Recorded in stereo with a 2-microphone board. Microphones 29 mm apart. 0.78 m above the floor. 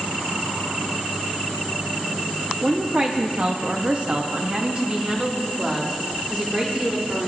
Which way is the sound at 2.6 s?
30° right (ahead or behind).